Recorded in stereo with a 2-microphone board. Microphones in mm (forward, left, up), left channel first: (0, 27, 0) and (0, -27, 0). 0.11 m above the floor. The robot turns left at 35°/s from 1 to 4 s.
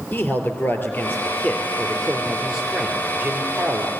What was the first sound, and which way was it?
A man speaking, 45° left.